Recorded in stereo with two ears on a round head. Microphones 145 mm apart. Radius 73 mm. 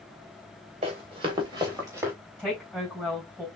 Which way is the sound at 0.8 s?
40° right (ahead or behind).